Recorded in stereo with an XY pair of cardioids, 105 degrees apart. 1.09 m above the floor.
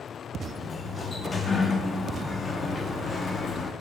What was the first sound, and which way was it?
A sliding door, 35° left.